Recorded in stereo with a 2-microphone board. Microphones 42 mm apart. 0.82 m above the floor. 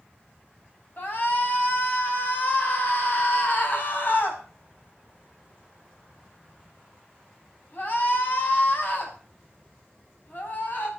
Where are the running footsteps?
No running footsteps in this recording.